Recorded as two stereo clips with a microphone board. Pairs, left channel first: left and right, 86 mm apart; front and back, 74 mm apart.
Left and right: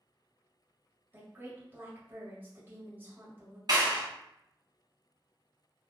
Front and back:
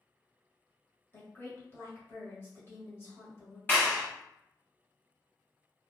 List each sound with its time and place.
1.1 s a woman speaking: 35° right, 1.2 m
3.7 s a clap: 60° right, 1.8 m